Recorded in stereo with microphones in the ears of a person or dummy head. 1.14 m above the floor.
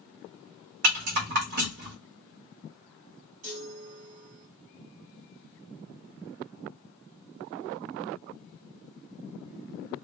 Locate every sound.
0.8 s a rattle: 60° right (ahead or behind), 1.8 m
3.4 s a chime: 50° right (ahead or behind), 2.5 m